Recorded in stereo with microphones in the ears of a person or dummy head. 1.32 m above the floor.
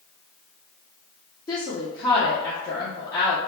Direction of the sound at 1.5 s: 25° left (ahead or behind).